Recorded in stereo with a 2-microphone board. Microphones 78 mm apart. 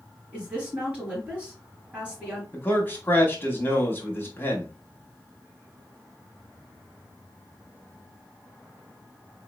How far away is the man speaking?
About 1.3 m.